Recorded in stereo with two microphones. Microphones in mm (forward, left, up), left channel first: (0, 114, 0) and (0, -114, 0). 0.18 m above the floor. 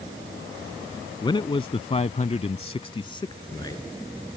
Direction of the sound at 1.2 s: 20° left (ahead or behind).